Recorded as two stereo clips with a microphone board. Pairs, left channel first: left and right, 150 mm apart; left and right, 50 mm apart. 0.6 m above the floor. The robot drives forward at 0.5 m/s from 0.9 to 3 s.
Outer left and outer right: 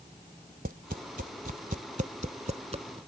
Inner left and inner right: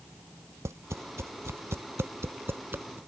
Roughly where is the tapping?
Right.